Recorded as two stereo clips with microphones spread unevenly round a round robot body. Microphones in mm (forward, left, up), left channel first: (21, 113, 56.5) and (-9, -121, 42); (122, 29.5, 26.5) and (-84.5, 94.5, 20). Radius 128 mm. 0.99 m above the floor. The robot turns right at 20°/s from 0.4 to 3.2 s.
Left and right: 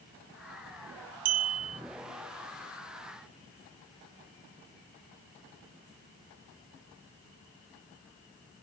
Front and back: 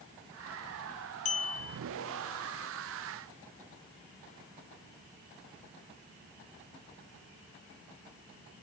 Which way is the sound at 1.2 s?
80° right.